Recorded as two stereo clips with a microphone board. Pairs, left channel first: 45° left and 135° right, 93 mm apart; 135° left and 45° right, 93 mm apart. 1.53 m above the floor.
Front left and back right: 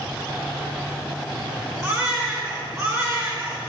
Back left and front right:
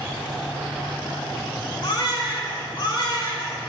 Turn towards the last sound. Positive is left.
turn(degrees=170)